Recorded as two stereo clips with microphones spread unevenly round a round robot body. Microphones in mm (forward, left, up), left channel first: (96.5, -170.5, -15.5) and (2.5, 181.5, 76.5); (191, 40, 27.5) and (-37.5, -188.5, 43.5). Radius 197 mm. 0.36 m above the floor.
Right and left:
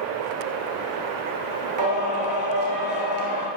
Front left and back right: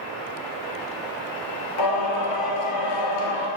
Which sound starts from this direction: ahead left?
Singing, at 1.8 s.